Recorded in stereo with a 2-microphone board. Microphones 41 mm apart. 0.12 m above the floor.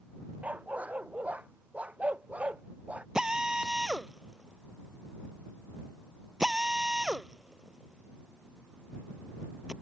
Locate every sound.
0.4 s a dog barking: 35° right (ahead or behind); by 3.0 s 30° right (ahead or behind)
3.1 s a drill: 15° right (ahead or behind)